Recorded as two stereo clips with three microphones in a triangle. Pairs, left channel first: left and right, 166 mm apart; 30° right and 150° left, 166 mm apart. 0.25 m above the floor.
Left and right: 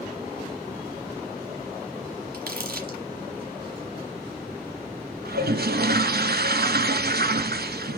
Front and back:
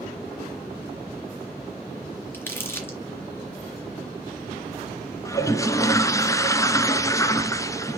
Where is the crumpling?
105° right, 3 m.